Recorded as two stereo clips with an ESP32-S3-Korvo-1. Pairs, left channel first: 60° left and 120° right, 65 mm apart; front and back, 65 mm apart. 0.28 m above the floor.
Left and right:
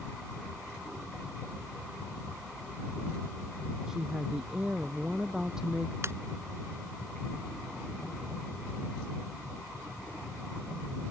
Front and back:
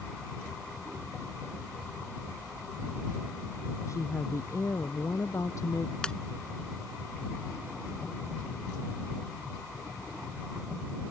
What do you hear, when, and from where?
3.9 s a woman speaking: 40° right
6.0 s a ringtone: 75° right